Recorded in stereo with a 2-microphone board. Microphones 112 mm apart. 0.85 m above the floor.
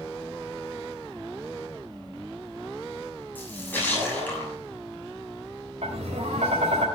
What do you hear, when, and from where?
3.4 s a splash: 15° left (ahead or behind), 7 m
5.8 s tapping: 80° right, 3.5 m